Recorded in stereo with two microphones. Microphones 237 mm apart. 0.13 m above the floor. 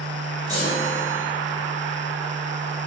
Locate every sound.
0.5 s a chime: 15° right (ahead or behind), 1.9 m